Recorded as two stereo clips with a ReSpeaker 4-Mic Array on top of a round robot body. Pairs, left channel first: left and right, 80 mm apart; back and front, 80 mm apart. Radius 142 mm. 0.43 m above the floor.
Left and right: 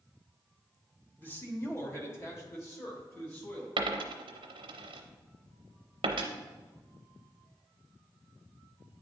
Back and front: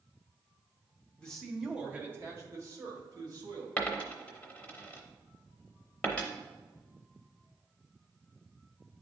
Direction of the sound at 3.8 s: 105° right.